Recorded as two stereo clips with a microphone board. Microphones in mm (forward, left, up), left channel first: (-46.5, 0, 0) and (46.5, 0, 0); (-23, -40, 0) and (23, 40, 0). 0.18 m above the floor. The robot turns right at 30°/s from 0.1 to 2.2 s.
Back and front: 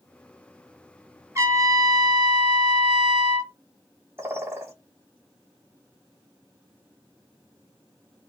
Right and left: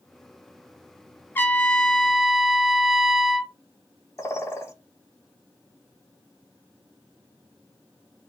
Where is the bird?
60° right, 0.6 m.